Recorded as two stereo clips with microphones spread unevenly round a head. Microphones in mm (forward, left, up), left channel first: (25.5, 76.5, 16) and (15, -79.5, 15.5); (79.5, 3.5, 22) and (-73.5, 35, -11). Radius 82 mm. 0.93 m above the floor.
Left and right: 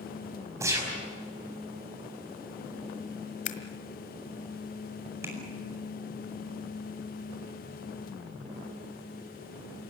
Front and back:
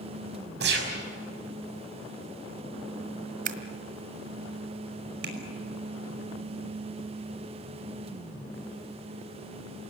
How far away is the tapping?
About 5 m.